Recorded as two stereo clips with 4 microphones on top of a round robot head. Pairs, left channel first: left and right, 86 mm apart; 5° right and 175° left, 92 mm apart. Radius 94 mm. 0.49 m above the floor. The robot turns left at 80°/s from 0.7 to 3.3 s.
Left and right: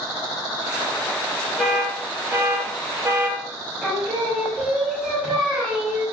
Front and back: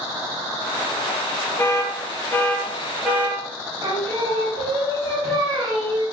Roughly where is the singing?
Behind.